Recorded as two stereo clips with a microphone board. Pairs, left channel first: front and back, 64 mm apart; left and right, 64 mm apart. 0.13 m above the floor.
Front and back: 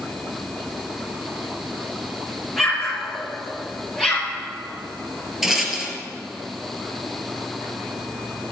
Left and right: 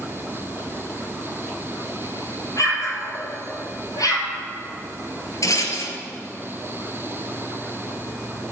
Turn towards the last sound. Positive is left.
turn(degrees=95)